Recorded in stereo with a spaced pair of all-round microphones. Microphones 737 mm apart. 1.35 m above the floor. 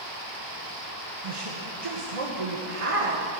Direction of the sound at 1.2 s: 45° right (ahead or behind).